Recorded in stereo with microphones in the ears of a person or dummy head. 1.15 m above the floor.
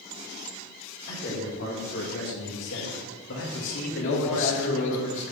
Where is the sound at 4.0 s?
75° left (ahead or behind), 0.9 m.